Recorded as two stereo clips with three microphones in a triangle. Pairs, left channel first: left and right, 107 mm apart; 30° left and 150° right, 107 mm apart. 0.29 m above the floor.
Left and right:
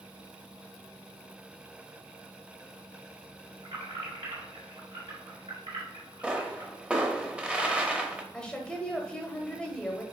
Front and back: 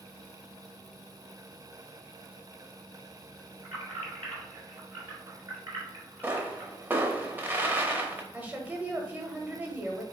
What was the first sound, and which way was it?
Keys jangling, 95° right.